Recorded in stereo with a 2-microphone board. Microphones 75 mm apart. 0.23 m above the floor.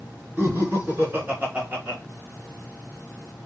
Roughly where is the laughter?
Right.